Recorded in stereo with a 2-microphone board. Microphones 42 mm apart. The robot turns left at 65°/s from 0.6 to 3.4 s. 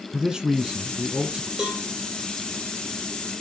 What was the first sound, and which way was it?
A man speaking, 15° right (ahead or behind).